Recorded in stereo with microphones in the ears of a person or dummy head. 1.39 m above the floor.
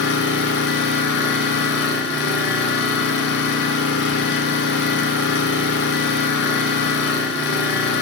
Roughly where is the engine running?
Left.